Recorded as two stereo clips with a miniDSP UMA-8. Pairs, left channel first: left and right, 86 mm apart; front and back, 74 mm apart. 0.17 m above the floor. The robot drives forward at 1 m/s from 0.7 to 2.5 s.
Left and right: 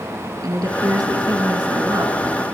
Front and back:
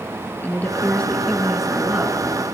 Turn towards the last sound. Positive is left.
turn(degrees=-130)